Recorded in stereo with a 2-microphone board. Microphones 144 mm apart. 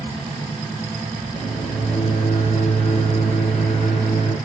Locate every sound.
1.3 s a microwave: 50° left (ahead or behind), 4.5 m